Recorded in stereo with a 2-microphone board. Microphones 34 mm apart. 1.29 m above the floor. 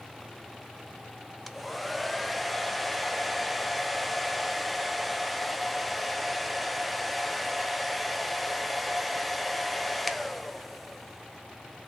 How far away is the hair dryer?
About 0.5 m.